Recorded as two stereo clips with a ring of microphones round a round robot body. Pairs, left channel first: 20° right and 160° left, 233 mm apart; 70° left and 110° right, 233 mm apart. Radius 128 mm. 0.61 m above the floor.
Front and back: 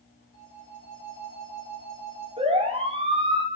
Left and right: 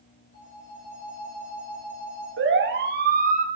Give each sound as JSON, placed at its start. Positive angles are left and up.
{"t": 0.3, "sound": "a phone ringing", "azimuth_deg": 25, "distance_m": 7.0}
{"t": 2.4, "sound": "a siren", "azimuth_deg": -140, "distance_m": 2.5}